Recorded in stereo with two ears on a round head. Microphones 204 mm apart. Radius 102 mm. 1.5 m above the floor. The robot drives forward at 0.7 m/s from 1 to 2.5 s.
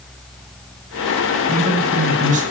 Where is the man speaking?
35° right (ahead or behind), 6 m.